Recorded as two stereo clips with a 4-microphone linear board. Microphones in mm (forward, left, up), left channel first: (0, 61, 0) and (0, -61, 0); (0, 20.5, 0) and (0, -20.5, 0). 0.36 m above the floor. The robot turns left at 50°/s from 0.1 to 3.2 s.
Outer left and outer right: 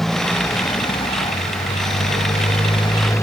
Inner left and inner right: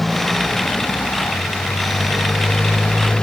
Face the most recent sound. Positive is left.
turn(degrees=25)